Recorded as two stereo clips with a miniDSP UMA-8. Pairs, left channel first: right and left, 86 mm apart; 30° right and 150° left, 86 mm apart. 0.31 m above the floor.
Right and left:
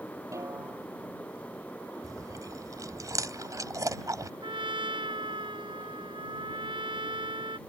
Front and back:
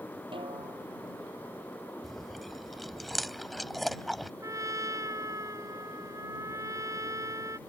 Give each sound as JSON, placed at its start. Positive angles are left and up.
{"t": 0.3, "sound": "a snare drum", "azimuth_deg": 145}
{"t": 2.0, "sound": "chewing", "azimuth_deg": 60}
{"t": 4.4, "sound": "a trumpet", "azimuth_deg": 100}